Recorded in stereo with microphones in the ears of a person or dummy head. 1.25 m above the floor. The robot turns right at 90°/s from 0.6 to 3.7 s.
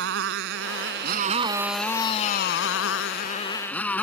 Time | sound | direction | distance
0.0 | a motorcycle | 110° right | ?